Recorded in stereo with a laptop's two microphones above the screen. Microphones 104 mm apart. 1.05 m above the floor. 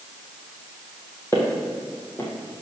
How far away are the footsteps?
About 1.8 m.